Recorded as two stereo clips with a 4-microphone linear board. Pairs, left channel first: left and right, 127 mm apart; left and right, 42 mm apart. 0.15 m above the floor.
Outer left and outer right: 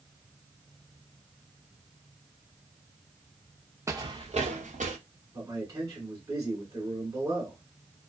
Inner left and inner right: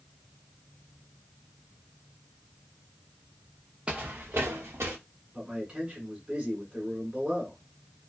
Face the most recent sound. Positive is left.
turn(degrees=-25)  # may be behind; listen again after turning